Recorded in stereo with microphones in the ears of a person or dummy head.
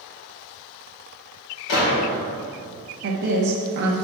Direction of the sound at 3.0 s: 60° right (ahead or behind).